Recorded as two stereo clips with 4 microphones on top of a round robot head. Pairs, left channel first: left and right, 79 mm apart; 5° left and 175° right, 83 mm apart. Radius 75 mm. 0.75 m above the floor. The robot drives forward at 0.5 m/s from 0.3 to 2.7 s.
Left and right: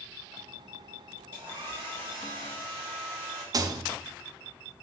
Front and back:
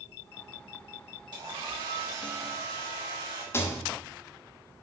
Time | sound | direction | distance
1.3 | a hair dryer | 150° right | 4 m
3.5 | a rattle | 55° right | 0.8 m